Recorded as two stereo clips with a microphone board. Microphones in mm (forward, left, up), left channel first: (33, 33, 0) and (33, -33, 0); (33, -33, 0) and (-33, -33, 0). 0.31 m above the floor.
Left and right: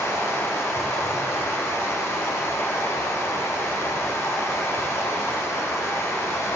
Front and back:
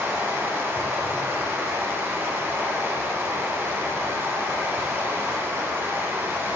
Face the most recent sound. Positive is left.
turn(degrees=130)